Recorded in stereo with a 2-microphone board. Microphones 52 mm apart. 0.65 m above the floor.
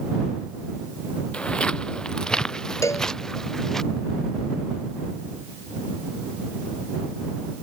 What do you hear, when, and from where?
1.3 s footsteps: 20° left (ahead or behind); by 3.8 s 10° left (ahead or behind)
2.8 s a cowbell: 85° left